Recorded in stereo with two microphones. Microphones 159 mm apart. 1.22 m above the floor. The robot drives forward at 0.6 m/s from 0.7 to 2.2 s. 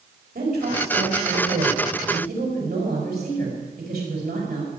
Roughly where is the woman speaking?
Right.